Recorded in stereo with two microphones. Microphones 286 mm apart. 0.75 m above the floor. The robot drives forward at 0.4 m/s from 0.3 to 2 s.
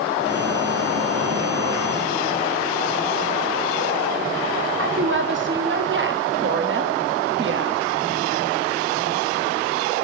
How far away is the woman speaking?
About 0.7 m.